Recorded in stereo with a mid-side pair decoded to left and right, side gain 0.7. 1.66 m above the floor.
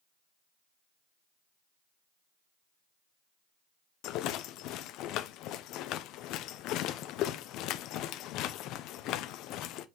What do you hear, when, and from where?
4.0 s a rattle: 60° left, 0.8 m